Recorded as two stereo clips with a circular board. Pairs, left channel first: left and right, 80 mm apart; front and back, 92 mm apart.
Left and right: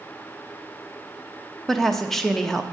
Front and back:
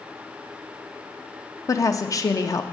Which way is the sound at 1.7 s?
5° left.